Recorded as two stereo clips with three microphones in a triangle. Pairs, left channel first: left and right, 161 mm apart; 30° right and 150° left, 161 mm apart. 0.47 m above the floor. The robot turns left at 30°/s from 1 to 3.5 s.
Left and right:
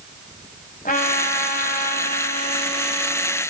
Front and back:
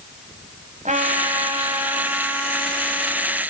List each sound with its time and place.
0.8 s a trumpet: 115° left, 2.5 m; by 3.4 s 40° left, 2.5 m